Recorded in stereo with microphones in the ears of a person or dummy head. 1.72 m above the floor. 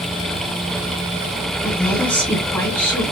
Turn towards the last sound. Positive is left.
turn(degrees=10)  # may be behind; listen again after turning